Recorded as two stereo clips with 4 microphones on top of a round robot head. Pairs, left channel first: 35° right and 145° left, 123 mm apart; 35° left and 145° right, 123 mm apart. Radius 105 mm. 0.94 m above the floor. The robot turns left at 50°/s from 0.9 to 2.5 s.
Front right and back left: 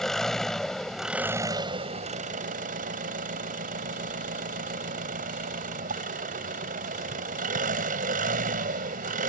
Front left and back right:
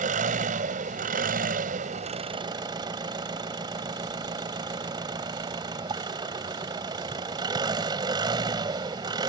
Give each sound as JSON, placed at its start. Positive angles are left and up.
{"t": 0.0, "sound": "an engine running", "azimuth_deg": -120}